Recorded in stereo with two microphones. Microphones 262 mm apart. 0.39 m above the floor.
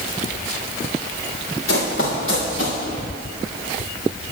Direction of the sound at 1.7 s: 55° left (ahead or behind).